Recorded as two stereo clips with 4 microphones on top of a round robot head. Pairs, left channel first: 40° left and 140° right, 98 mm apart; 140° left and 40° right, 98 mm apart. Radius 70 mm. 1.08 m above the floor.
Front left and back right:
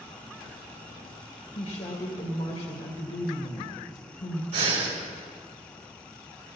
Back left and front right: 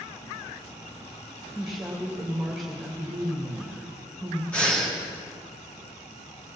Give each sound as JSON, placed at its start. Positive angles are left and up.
{"t": 1.6, "sound": "a woman speaking", "azimuth_deg": 50, "distance_m": 2.0}
{"t": 4.5, "sound": "breathing", "azimuth_deg": -140, "distance_m": 4.0}